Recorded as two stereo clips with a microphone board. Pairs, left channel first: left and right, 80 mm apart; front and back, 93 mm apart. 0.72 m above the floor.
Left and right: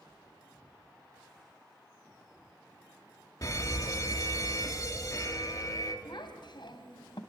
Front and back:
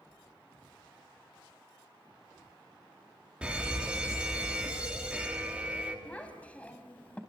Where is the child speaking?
75° left, 3 m.